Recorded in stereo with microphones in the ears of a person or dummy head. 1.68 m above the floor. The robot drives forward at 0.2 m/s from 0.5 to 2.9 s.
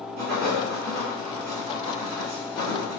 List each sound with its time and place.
0.2 s writing: 70° right (ahead or behind), 1.6 m; by 3.0 s 60° right (ahead or behind), 1.8 m